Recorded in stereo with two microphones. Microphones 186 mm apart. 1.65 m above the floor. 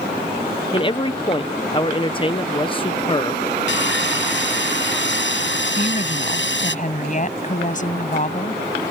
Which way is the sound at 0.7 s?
30° left (ahead or behind).